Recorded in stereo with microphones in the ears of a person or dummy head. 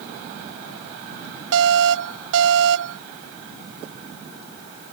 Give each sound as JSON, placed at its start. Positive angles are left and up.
{"t": 1.5, "sound": "an alarm", "side_deg": -75}